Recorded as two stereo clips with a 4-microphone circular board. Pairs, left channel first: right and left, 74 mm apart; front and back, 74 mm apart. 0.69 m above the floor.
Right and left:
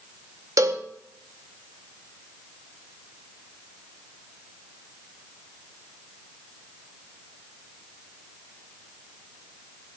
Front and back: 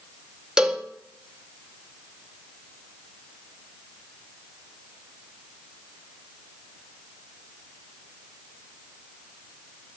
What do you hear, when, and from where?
0.6 s a cowbell: 100° left, 0.8 m